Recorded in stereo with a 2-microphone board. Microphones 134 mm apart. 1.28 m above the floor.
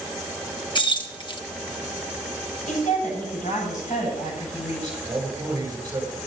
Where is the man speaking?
25° right (ahead or behind), 8 m.